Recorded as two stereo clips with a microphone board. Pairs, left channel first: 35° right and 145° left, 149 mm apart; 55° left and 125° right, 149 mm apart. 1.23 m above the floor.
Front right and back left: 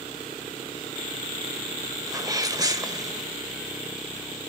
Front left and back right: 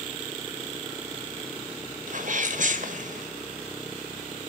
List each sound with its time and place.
2.1 s a sneeze: 150° right, 1.6 m